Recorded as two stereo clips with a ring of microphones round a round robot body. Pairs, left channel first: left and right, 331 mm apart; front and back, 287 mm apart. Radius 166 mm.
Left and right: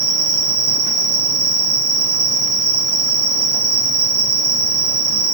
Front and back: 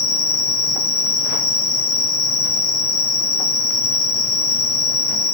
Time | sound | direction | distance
0.0 | an insect | 55° right | 0.9 m